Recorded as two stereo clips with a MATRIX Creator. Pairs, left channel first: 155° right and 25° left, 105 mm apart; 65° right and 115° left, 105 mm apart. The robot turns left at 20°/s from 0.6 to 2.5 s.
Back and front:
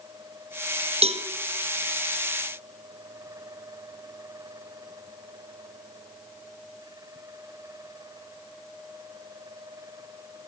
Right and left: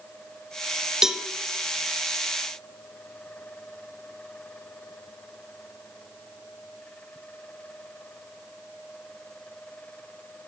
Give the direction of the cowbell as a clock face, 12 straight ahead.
11 o'clock.